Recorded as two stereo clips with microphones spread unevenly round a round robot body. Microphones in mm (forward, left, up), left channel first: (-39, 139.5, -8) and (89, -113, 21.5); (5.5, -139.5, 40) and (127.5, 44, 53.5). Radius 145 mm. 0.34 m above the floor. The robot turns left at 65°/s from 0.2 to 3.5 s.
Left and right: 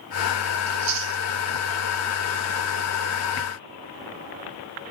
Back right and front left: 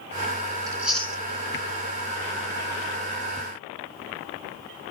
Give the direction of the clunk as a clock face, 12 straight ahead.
I don't hear a clunk.